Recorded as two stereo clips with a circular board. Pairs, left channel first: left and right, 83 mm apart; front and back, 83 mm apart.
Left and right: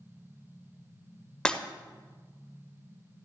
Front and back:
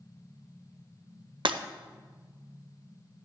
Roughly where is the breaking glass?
Behind.